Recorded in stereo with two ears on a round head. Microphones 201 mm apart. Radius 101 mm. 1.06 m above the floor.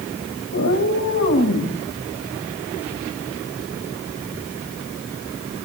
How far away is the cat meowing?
About 4 m.